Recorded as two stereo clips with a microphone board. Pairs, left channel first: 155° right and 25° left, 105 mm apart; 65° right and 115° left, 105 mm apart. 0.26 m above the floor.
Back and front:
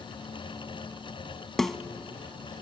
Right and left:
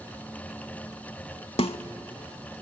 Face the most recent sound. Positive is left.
turn(degrees=-70)